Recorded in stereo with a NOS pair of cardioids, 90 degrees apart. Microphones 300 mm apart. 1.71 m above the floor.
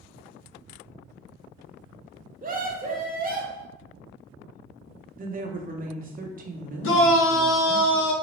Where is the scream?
30° right, 1.0 m.